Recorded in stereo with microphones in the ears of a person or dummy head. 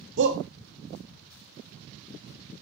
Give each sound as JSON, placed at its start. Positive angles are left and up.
{"t": 0.2, "sound": "a shout", "side_deg": -65, "distance_m": 1.0}